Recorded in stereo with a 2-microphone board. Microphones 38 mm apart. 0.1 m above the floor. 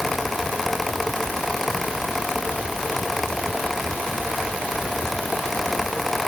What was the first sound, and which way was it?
Only background noise.